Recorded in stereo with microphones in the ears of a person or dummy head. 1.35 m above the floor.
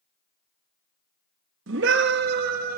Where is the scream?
85° right, 2 m; by 2.8 s 55° right (ahead or behind), 2.5 m.